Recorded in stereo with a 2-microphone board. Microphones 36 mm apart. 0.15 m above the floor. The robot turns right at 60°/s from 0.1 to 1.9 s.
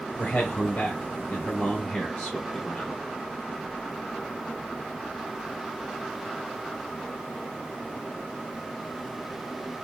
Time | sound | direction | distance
0.2 | a man speaking | 45° left | 1.5 m